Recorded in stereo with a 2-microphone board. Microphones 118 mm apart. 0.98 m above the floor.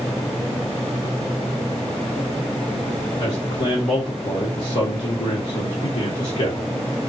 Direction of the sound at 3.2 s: 65° left (ahead or behind).